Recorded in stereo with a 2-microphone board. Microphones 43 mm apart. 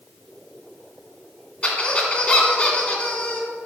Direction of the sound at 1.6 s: 30° left (ahead or behind).